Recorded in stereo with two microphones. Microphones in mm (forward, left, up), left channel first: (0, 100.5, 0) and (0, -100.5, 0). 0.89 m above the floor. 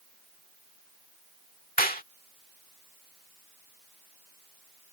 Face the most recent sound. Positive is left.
turn(degrees=45)  # may be behind; listen again after turning